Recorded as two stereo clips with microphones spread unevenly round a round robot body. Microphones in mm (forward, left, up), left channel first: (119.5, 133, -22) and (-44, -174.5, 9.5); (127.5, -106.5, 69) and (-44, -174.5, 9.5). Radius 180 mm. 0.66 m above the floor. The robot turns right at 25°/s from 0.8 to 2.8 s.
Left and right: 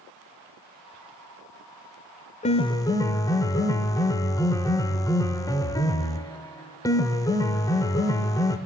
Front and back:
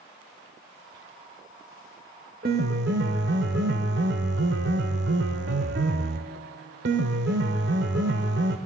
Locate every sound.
2.4 s a piano: 135° left, 0.6 m; by 8.6 s 145° left, 0.6 m